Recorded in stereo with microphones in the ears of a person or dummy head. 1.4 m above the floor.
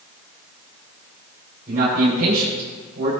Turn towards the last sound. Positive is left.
turn(degrees=-50)  # may be behind; listen again after turning